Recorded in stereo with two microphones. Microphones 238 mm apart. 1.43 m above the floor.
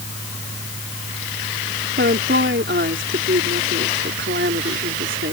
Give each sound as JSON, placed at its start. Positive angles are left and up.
{"t": 2.0, "sound": "a woman speaking", "side_deg": -55}